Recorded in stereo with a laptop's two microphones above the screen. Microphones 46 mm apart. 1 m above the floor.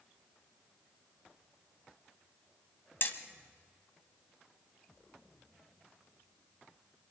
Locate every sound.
3.0 s hammering: 50° left (ahead or behind), 1.4 m